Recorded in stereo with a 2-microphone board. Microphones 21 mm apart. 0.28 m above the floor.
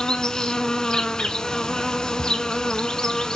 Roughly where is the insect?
Left.